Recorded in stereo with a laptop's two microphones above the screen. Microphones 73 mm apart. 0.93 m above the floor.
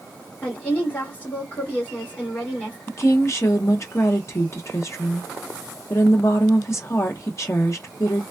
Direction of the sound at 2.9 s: 40° left (ahead or behind).